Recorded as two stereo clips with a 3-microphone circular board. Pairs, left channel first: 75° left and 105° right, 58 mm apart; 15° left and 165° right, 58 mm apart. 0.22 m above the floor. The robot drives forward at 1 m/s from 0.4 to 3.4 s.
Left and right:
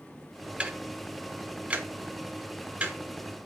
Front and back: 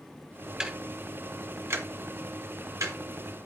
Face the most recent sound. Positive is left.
turn(degrees=-170)